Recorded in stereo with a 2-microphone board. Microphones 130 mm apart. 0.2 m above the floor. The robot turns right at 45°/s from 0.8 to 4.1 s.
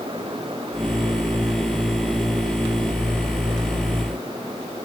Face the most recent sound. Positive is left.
No sound to turn to.